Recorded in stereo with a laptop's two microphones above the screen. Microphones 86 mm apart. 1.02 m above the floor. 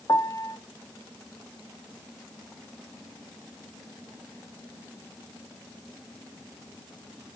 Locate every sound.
0.1 s a piano: 45° left (ahead or behind), 0.7 m